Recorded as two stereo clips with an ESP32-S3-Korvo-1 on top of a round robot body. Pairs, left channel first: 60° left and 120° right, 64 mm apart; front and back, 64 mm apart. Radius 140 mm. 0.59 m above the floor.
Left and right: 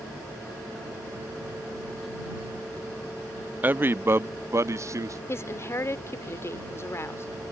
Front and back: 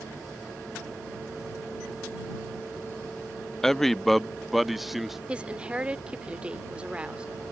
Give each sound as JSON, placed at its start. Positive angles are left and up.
{"t": 3.6, "sound": "a man speaking", "azimuth_deg": -80}
{"t": 5.3, "sound": "a woman speaking", "azimuth_deg": 110}